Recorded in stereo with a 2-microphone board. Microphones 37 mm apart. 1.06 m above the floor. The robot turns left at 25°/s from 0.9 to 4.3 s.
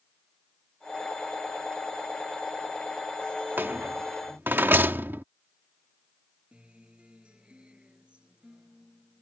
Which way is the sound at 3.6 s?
75° right (ahead or behind).